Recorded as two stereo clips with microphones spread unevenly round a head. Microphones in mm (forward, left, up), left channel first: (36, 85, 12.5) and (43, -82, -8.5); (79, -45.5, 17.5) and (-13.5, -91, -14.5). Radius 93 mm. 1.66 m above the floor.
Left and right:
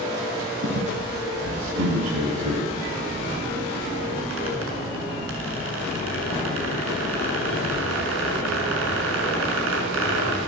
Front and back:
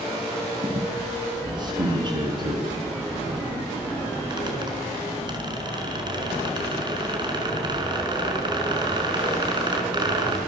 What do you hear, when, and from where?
0.6 s a squeak: 105° right, 6.5 m